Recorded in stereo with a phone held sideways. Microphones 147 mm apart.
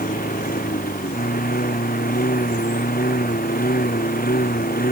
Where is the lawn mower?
75° left (ahead or behind); by 4.9 s 80° left.